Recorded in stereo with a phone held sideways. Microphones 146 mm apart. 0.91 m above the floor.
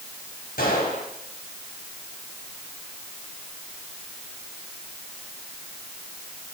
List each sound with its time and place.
0.6 s a gunshot: 80° left, 4.5 m